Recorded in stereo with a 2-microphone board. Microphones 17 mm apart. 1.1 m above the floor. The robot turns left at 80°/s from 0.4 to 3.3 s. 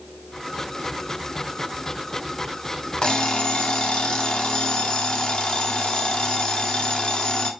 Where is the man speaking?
I don't hear a man speaking.